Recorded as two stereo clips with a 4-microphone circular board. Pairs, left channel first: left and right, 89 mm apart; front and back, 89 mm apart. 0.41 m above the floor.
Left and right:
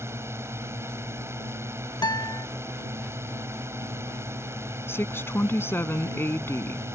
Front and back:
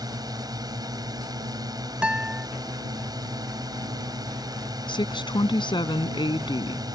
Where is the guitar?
105° left.